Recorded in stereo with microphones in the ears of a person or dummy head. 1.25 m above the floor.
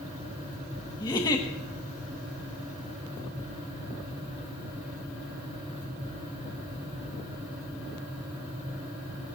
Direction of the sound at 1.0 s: 20° left (ahead or behind).